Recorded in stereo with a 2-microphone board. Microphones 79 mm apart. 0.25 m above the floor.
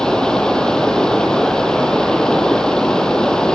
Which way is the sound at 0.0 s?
10° left (ahead or behind).